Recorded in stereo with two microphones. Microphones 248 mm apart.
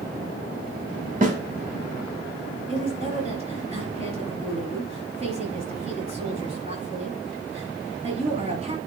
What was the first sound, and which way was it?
A snare drum, 30° right (ahead or behind).